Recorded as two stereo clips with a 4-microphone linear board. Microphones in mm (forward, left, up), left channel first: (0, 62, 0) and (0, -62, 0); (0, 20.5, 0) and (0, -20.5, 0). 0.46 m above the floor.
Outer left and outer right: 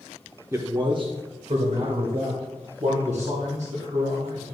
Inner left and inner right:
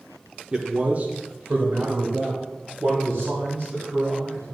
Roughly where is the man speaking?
Right.